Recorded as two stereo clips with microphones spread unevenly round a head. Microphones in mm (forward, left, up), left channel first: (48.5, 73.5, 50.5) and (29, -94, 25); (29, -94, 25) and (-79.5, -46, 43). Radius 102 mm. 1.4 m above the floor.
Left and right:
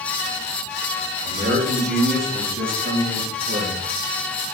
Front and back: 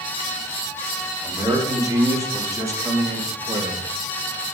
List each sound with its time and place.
1.2 s a man speaking: 135° right, 4 m; by 3.9 s 145° right, 2 m